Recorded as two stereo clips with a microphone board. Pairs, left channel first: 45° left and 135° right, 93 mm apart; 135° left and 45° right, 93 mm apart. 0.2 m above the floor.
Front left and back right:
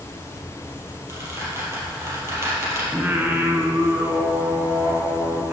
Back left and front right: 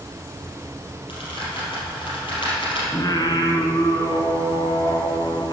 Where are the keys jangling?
I don't hear keys jangling.